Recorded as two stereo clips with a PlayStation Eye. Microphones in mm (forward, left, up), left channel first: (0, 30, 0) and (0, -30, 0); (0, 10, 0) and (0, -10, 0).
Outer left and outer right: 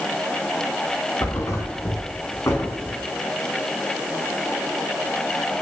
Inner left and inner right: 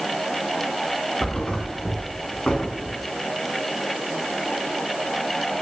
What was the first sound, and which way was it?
A thud, 60° left (ahead or behind).